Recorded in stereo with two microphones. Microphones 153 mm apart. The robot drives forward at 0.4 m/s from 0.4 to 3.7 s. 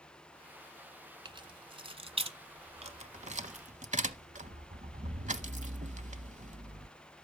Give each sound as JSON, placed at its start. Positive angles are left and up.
{"t": 1.2, "sound": "keys jangling", "side_deg": -30, "distance_m": 1.4}